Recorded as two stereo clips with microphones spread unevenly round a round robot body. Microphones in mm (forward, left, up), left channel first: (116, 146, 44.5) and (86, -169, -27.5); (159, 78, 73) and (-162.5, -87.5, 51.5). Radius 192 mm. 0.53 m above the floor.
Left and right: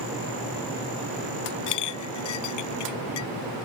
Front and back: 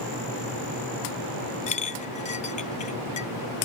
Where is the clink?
100° left.